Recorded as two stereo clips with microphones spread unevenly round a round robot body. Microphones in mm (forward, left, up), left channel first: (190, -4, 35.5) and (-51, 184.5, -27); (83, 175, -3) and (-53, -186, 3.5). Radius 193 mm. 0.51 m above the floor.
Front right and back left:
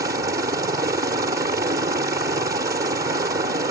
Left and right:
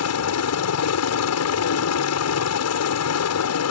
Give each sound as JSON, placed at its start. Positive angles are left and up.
{"t": 0.0, "sound": "a helicopter", "azimuth_deg": 85}